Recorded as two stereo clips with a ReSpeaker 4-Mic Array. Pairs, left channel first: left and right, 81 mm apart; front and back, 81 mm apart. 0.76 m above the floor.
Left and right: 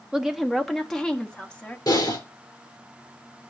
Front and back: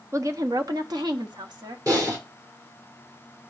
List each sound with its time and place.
0.1 s a woman speaking: 165° right, 0.7 m; by 1.8 s 165° left, 1.3 m
1.9 s typing on a keyboard: 135° left, 4 m